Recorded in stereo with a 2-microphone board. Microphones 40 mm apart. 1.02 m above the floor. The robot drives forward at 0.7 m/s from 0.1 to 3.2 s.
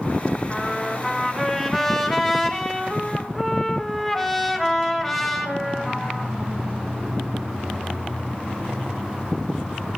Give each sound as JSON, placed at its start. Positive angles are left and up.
{"t": 0.5, "sound": "a trumpet", "side_deg": -5, "distance_m": 3.5}